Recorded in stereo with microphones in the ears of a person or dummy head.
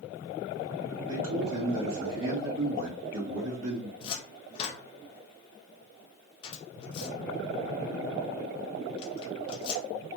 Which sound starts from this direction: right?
A man speaking, at 1.1 s.